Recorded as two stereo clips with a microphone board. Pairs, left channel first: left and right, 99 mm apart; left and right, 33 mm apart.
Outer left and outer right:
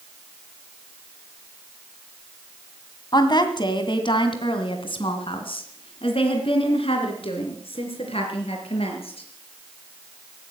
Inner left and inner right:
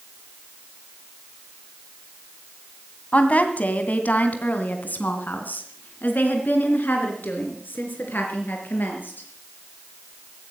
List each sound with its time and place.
3.1 s a woman speaking: 45° left (ahead or behind), 1.6 m; by 9.2 s 75° left (ahead or behind), 4.5 m